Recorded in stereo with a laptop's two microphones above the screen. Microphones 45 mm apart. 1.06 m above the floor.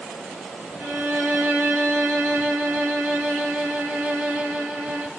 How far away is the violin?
About 0.6 m.